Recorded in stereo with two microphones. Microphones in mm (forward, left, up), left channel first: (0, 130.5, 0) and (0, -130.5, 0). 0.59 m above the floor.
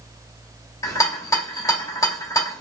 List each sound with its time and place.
0.8 s a rattle: 10° left (ahead or behind), 0.9 m